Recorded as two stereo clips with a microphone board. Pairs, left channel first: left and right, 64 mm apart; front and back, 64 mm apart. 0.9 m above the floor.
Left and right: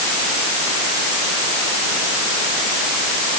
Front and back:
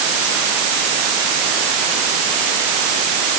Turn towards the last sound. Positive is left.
No sound to turn to.